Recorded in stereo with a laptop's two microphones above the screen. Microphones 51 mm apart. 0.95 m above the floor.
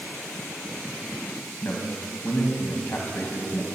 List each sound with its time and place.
1.6 s a man speaking: 45° left (ahead or behind), 1.0 m